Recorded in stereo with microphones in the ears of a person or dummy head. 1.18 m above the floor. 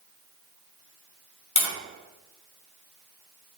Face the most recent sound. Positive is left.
turn(degrees=85)